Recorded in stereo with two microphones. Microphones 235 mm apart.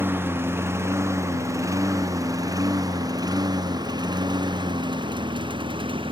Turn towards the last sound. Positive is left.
turn(degrees=-20)  # may be behind; listen again after turning